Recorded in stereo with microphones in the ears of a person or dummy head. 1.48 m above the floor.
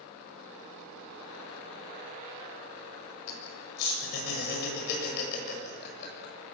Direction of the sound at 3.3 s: 55° left (ahead or behind).